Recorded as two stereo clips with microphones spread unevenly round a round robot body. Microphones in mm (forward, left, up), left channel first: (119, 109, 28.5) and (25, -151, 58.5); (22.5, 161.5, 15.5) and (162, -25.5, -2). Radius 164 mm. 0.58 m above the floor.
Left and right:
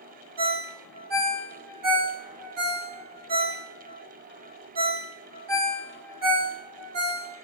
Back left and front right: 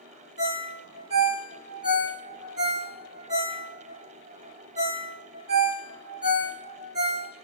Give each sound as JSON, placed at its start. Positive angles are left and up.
{"t": 0.4, "sound": "a ringtone", "azimuth_deg": -115, "distance_m": 1.6}